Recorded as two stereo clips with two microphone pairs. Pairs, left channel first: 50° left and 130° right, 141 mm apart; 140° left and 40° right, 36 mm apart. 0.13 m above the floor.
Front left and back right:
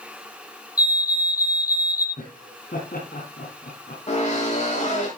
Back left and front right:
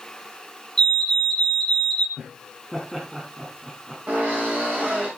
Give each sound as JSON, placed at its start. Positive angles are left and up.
{"t": 0.8, "sound": "a fire alarm", "azimuth_deg": 80, "distance_m": 2.5}
{"t": 2.2, "sound": "laughter", "azimuth_deg": 45, "distance_m": 6.0}
{"t": 4.1, "sound": "a drill", "azimuth_deg": 10, "distance_m": 8.0}